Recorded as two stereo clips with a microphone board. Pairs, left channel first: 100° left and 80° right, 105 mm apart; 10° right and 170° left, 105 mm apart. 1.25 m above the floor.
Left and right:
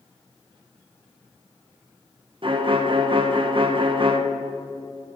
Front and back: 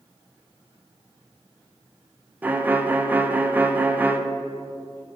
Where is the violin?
115° right, 0.6 m.